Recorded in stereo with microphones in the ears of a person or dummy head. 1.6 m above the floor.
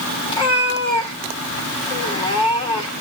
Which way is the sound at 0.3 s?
20° left (ahead or behind).